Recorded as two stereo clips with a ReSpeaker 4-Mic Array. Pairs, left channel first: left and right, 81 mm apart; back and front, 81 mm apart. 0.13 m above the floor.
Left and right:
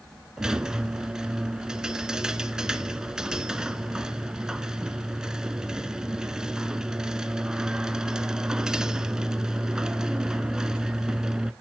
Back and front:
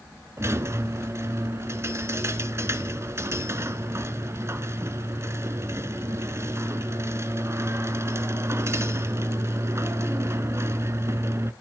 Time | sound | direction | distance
0.4 | a squeak | 15° right | 0.9 m